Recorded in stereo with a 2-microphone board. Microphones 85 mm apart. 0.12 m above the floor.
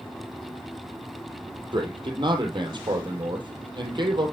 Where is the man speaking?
65° right (ahead or behind), 3 m.